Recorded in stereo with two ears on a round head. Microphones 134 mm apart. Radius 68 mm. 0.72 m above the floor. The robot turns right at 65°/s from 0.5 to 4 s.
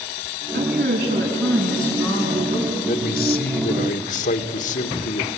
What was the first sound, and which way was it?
A woman speaking, 75° right.